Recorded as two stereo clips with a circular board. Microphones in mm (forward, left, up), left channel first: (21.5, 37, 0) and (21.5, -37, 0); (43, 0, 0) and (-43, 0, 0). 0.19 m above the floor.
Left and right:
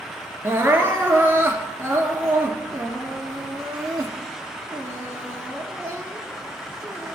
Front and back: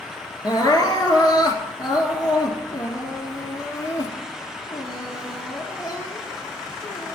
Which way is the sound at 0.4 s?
30° right.